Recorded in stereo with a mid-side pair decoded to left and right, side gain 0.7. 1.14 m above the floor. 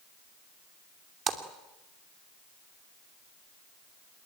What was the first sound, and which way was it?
A splash, 35° right.